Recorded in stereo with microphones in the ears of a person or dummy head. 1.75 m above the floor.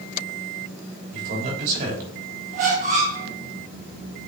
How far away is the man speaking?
About 3.5 m.